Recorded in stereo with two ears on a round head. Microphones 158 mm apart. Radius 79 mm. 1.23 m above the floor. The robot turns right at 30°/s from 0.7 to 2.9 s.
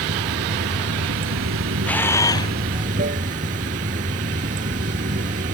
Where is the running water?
110° right; by 5.5 s 45° right.